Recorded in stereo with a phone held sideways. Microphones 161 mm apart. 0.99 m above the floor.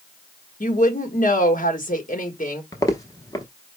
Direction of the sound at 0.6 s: 55° left (ahead or behind).